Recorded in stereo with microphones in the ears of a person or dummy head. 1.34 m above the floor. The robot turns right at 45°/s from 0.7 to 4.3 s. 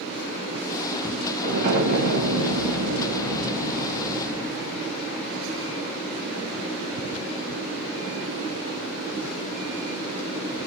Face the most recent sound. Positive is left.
turn(degrees=-5)